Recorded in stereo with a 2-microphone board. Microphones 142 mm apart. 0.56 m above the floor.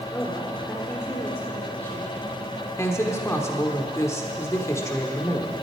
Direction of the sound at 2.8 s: 20° left (ahead or behind).